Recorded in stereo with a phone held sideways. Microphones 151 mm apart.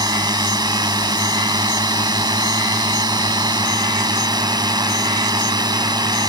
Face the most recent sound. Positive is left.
turn(degrees=-25)  # may be behind; listen again after turning